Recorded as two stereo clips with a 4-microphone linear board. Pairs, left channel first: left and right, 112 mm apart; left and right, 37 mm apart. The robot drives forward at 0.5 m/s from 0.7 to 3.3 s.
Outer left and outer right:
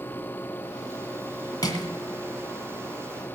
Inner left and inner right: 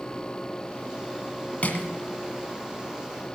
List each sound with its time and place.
1.6 s crushing: 35° left (ahead or behind), 2 m; by 1.9 s 40° left (ahead or behind), 1.9 m